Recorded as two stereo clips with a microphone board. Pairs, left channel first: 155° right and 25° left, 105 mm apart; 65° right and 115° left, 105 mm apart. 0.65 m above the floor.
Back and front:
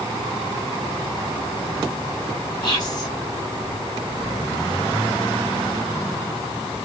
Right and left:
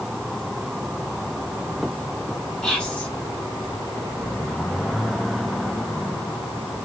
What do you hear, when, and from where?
2.6 s whispering: 145° right, 1.5 m